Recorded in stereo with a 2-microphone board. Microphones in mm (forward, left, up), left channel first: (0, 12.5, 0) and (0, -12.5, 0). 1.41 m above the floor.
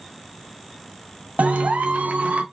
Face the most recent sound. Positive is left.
turn(degrees=-65)  # may be behind; listen again after turning